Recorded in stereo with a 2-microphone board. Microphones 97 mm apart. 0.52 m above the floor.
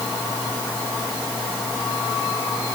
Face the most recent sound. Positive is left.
No sound to turn to.